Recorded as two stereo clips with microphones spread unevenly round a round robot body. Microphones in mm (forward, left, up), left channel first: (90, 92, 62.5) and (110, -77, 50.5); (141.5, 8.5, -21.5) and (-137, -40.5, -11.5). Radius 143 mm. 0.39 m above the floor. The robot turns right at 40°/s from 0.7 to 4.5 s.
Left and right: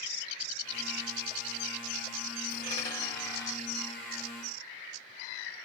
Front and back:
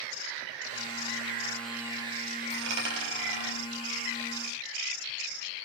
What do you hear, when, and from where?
2.5 s a dropped coin: 160° left, 1.2 m; by 3.6 s 155° right, 1.2 m